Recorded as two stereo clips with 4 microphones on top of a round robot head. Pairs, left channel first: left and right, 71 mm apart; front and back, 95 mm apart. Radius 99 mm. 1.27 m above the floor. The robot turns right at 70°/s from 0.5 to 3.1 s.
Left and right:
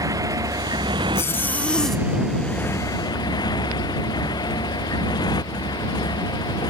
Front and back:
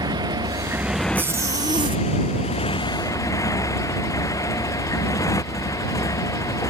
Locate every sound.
0.0 s a motorcycle: 125° right; by 6.7 s 55° left
1.1 s a zipper: 120° left; by 2.0 s straight behind